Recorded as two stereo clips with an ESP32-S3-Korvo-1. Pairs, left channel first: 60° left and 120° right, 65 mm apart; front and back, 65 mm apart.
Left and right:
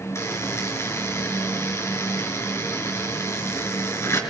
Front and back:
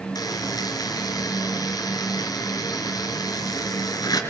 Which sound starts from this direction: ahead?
A buzzer, at 0.1 s.